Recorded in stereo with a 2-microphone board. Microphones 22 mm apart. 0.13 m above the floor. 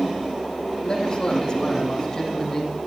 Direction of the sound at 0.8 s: 35° left (ahead or behind).